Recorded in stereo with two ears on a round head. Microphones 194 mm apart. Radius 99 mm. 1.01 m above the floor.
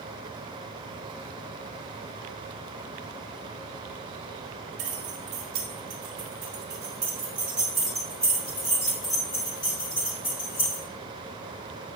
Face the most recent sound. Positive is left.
turn(degrees=25)  # may be behind; listen again after turning